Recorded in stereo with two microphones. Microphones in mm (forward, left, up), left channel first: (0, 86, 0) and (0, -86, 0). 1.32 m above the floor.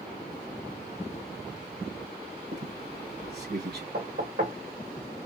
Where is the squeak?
70° right (ahead or behind), 2 m.